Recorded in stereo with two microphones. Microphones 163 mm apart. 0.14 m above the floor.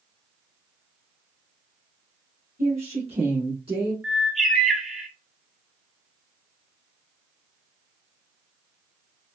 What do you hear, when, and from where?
2.6 s a woman speaking: 50° right (ahead or behind), 1.6 m; by 3.9 s 30° right (ahead or behind), 1.2 m
4.0 s a bird: centre (ahead or behind), 1.2 m